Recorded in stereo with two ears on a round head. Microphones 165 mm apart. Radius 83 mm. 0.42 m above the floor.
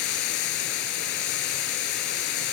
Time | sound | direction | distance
0.0 | running water | 60° left (ahead or behind) | 0.8 m